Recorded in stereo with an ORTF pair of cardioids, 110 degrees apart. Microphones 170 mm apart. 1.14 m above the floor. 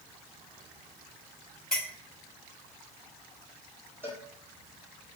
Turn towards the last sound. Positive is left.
turn(degrees=-15)